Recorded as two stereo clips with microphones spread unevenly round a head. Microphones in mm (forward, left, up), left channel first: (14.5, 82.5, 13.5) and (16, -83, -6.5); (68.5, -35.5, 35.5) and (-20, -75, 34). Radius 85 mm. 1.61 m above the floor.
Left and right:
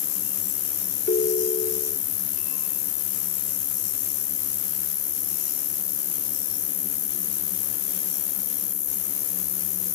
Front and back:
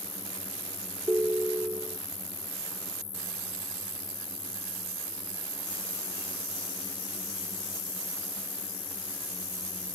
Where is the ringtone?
130° left.